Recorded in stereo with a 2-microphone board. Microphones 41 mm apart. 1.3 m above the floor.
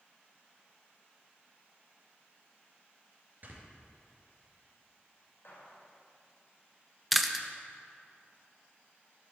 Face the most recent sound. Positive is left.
turn(degrees=0)  # may be behind; listen again after turning